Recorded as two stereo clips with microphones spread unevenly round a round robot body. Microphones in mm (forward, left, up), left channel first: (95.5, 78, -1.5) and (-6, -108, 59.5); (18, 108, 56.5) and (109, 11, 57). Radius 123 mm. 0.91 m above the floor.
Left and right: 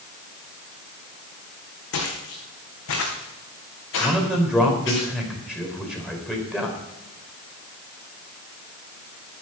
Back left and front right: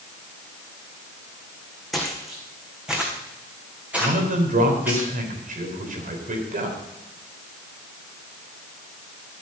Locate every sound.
1.9 s footsteps: 45° left, 4 m; by 5.0 s 30° left, 5.5 m
4.0 s a man speaking: 30° right, 4 m